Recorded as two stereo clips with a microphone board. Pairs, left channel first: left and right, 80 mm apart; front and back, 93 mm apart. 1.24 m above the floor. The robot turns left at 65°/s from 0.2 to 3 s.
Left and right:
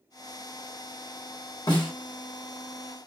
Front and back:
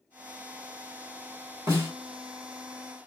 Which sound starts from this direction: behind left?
A snare drum, at 1.7 s.